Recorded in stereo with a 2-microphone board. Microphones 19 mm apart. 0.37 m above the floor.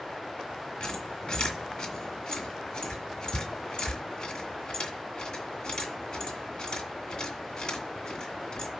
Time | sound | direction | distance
0.8 | a squeak | 50° left (ahead or behind) | 2 m